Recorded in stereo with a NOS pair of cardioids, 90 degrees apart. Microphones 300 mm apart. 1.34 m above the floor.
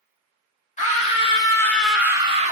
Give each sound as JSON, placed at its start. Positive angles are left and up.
{"t": 0.8, "sound": "a scream", "azimuth_deg": 25, "distance_m": 1.9}